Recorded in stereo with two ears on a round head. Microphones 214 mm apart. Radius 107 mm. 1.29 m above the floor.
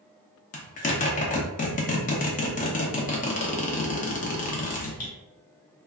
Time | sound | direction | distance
0.5 | a zipper | 35° left (ahead or behind) | 0.7 m